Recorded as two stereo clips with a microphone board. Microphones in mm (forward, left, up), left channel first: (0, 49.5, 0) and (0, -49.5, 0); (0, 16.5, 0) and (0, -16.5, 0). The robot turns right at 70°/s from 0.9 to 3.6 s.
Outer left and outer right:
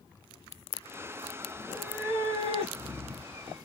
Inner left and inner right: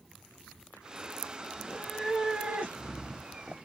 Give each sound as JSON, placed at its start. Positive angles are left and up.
{"t": 1.5, "sound": "a cat meowing", "azimuth_deg": 175, "distance_m": 2.5}